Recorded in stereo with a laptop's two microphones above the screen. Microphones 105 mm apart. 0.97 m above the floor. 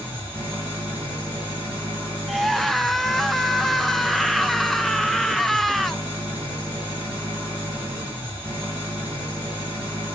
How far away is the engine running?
About 4.5 m.